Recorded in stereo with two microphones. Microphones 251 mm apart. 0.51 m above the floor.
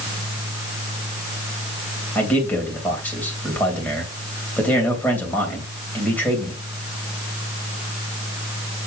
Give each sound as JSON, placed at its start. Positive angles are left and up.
{"t": 2.1, "sound": "a man speaking", "side_deg": 5, "distance_m": 3.0}